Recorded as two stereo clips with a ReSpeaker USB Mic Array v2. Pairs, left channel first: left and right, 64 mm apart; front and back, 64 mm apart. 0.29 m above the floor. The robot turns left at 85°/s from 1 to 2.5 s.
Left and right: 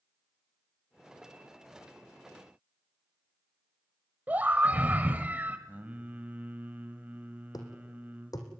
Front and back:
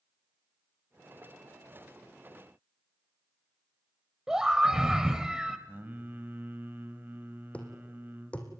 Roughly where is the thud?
Left.